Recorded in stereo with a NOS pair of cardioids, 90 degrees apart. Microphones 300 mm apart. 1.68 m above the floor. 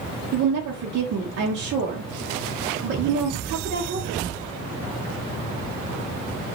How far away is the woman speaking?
About 0.7 m.